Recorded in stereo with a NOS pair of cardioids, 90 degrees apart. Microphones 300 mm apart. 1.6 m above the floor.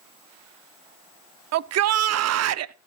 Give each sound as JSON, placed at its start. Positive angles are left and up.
{"t": 1.5, "sound": "a shout", "azimuth_deg": -60, "distance_m": 0.7}